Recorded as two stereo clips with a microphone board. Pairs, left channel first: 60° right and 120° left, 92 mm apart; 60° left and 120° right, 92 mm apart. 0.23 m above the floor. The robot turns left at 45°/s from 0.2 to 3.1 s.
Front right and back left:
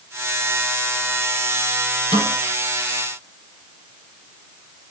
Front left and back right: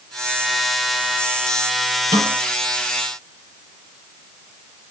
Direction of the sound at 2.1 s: 60° right.